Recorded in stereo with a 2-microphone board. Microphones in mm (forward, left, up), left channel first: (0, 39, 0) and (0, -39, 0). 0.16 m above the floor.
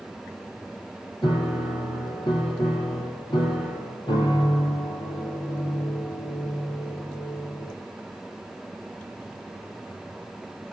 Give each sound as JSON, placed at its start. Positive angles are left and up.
{"t": 1.2, "sound": "a piano", "side_deg": 70, "distance_m": 5.5}